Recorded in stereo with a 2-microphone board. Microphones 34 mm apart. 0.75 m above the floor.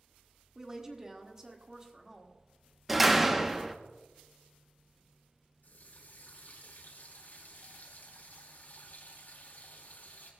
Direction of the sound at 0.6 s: 15° right (ahead or behind).